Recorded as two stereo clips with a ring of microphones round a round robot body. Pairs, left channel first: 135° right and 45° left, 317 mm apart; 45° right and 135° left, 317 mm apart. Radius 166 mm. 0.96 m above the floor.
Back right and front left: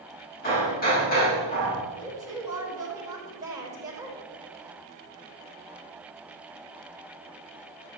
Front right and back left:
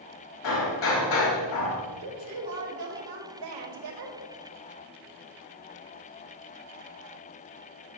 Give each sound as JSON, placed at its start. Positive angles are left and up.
{"t": 0.4, "sound": "hammering", "azimuth_deg": -70, "distance_m": 5.0}
{"t": 2.0, "sound": "a woman speaking", "azimuth_deg": 125, "distance_m": 5.0}